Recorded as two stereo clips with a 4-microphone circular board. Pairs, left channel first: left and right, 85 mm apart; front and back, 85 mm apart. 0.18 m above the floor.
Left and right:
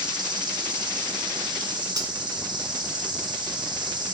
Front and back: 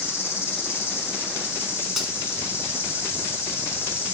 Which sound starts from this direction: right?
Cutlery clinking, at 2.0 s.